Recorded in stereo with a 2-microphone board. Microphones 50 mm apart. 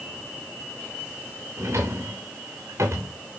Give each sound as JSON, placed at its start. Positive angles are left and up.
{"t": 1.6, "sound": "a drawer", "side_deg": -65, "distance_m": 3.0}